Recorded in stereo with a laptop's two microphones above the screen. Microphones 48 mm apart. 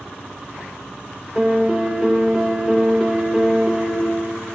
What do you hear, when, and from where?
1.4 s a piano: 15° right (ahead or behind), 1.3 m